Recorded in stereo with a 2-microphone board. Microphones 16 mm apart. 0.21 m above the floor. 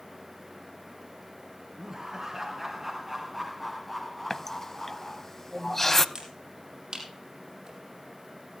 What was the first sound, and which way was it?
Laughter, 25° right (ahead or behind).